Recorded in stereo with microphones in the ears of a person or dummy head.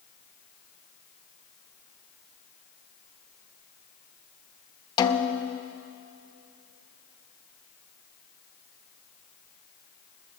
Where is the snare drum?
30° left (ahead or behind), 0.7 m.